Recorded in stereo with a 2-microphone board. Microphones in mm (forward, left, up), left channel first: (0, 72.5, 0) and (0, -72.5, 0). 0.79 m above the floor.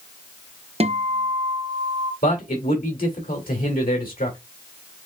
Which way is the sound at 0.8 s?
45° right (ahead or behind).